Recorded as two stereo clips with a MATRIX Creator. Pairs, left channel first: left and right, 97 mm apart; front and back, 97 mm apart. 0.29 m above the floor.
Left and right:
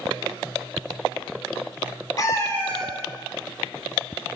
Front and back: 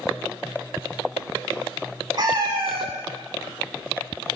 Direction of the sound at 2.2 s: 140° left.